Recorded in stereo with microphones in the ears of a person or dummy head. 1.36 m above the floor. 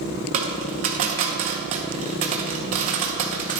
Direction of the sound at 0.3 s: 35° right (ahead or behind).